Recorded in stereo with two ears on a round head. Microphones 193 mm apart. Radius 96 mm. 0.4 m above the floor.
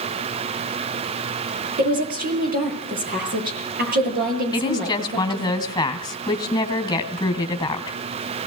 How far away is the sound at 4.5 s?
About 2.5 m.